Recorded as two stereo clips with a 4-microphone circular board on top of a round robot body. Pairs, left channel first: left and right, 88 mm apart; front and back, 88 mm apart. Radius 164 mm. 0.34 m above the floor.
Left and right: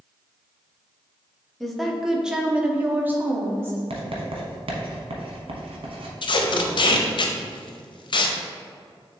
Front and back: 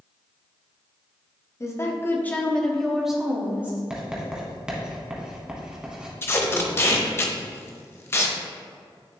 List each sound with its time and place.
1.6 s a woman speaking: 5° left, 1.3 m; by 3.8 s 130° right, 1.3 m
3.9 s writing: 100° right, 1.0 m
6.2 s tape being pulled: 60° left, 0.6 m